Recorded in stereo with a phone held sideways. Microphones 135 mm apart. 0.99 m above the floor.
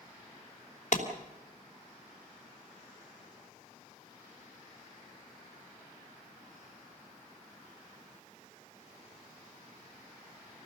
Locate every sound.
0.9 s a clap: 60° left (ahead or behind), 3 m